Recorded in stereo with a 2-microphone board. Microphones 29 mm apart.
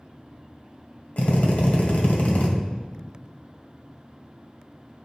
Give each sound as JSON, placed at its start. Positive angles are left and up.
{"t": 1.2, "sound": "a drill", "side_deg": 55, "distance_m": 1.8}